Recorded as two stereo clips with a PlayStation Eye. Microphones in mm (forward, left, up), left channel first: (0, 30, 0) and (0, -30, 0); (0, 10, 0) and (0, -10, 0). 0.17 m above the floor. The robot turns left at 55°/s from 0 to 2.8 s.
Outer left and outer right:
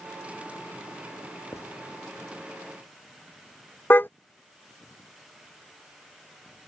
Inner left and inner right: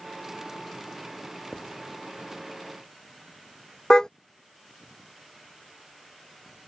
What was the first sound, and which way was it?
Writing, 55° left (ahead or behind).